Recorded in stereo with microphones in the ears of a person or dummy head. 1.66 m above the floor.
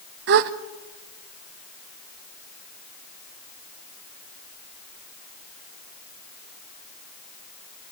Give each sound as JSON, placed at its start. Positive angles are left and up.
{"t": 0.3, "sound": "a gasp", "side_deg": -60, "distance_m": 0.7}